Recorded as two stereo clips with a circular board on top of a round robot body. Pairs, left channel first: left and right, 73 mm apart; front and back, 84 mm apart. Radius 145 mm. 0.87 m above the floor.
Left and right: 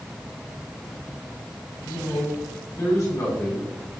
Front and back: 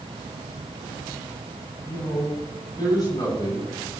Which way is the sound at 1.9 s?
45° left.